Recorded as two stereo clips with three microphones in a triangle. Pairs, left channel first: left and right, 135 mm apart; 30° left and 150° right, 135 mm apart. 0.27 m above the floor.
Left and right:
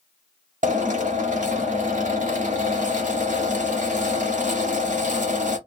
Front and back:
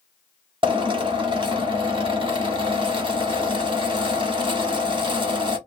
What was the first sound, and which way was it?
A drill, 100° right.